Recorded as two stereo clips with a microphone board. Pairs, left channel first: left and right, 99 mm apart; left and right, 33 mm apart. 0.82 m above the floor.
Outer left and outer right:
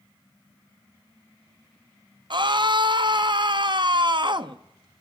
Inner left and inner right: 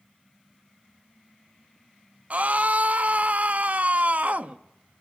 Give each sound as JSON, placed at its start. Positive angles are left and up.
{"t": 2.3, "sound": "a scream", "side_deg": -50, "distance_m": 0.8}